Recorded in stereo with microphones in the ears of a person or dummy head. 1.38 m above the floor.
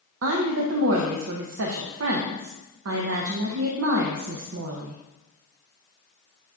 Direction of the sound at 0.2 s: 70° right (ahead or behind).